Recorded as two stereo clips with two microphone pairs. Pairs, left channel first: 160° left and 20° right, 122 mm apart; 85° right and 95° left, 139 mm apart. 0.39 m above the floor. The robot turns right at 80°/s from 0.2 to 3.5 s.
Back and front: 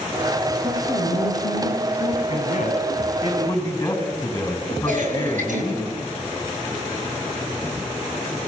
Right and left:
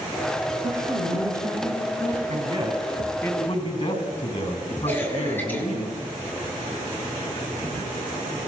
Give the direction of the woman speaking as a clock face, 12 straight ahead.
8 o'clock.